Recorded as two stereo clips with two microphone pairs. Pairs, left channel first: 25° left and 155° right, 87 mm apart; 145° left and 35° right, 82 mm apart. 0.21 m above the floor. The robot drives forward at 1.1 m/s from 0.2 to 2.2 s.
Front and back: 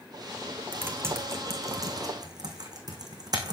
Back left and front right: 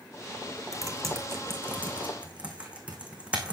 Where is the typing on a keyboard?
85° right, 3 m; by 3.5 s 115° right, 3.5 m.